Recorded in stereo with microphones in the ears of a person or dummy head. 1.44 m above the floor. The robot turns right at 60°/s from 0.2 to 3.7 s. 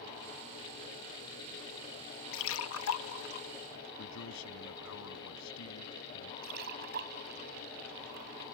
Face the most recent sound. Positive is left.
turn(degrees=-60)  # may be behind; listen again after turning